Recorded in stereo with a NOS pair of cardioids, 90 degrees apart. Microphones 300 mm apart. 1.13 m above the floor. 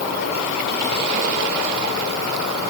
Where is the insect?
60° left, 3.5 m.